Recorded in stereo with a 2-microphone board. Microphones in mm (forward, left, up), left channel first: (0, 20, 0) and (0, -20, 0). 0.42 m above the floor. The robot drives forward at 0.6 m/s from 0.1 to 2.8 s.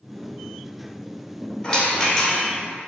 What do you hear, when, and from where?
1.6 s a rattle: 10° left (ahead or behind), 1.8 m